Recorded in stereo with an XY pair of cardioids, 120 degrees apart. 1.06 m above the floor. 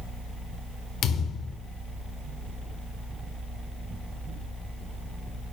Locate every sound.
1.0 s a thud: 60° left, 1.5 m